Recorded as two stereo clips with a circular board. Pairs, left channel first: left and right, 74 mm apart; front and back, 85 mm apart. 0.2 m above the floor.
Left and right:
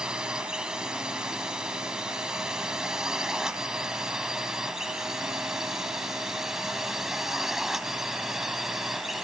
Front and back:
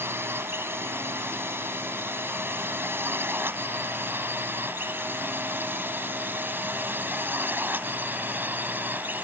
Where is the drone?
160° right; by 9.2 s 170° right.